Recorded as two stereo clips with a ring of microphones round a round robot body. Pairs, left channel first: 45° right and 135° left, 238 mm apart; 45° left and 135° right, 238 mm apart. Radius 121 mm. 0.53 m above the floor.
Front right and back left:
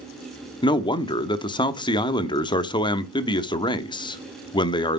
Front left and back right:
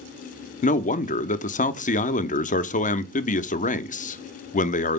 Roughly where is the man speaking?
Ahead.